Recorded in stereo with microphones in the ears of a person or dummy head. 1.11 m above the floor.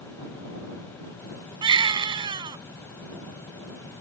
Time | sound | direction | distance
1.6 | a baby crying | 20° right (ahead or behind) | ?